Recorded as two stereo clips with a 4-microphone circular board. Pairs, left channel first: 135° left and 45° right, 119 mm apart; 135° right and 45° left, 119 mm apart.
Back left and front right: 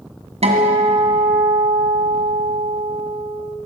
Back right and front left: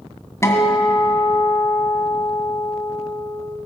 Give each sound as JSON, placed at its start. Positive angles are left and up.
{"t": 0.4, "sound": "a guitar", "azimuth_deg": -70, "distance_m": 2.0}